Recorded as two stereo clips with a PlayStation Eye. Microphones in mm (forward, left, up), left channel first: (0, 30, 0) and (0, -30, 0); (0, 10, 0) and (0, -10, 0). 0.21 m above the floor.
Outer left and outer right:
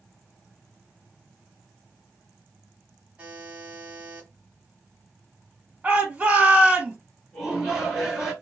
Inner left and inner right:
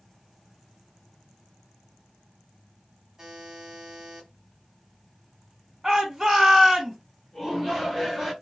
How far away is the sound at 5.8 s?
About 1.8 m.